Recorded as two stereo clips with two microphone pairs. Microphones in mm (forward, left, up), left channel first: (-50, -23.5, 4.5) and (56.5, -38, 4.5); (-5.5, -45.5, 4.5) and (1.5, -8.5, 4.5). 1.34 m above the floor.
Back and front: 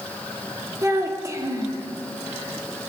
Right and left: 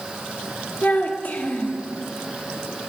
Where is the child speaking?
65° right, 1.9 m.